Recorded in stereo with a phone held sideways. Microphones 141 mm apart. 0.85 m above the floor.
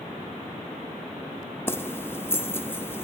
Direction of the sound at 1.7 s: 15° left (ahead or behind).